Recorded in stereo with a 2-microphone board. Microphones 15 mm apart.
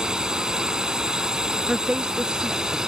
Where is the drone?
55° right (ahead or behind); by 2.9 s 50° right (ahead or behind).